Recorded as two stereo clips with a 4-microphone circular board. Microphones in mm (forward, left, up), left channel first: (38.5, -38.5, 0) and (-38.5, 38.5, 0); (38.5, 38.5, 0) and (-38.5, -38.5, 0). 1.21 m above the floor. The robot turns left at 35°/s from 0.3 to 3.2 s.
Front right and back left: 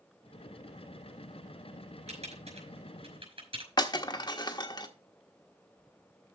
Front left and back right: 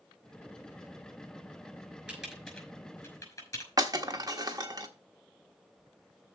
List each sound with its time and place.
2.1 s typing on a keyboard: 145° left, 5 m; by 3.7 s 105° left, 5 m
3.8 s breaking glass: 90° right, 1.3 m